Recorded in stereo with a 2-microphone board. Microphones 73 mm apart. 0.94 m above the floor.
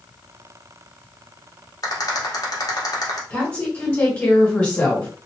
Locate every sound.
1.8 s a rattle: 60° left (ahead or behind), 1.1 m
3.3 s a woman speaking: 25° left (ahead or behind), 1.8 m